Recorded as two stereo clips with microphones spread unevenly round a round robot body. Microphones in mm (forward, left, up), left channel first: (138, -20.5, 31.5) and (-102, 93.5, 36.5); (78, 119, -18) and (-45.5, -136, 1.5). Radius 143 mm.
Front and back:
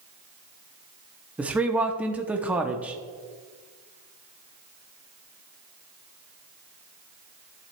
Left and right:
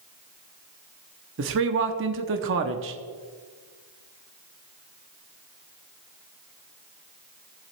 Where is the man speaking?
120° right, 0.9 m.